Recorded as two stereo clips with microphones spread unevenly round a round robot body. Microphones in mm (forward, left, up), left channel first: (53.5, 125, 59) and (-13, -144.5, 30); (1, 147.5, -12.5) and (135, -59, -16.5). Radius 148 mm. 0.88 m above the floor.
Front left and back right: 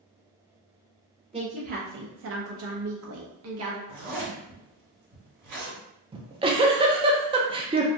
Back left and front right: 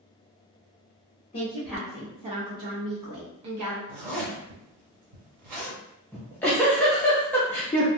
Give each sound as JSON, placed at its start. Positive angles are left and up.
{"t": 1.3, "sound": "a woman speaking", "azimuth_deg": -170, "distance_m": 0.9}
{"t": 3.9, "sound": "a zipper", "azimuth_deg": -75, "distance_m": 1.9}
{"t": 6.1, "sound": "a giggle", "azimuth_deg": -155, "distance_m": 0.5}